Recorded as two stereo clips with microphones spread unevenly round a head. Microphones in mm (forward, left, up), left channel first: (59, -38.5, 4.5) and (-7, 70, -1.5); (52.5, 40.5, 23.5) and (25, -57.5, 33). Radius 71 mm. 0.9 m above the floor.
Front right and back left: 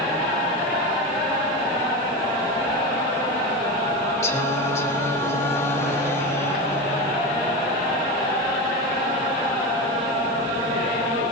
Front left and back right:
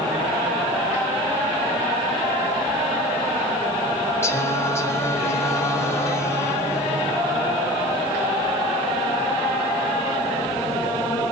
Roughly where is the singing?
Ahead.